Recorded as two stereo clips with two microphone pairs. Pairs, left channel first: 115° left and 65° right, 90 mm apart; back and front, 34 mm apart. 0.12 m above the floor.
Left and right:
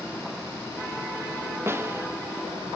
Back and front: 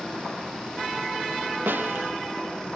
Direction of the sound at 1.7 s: 5° right.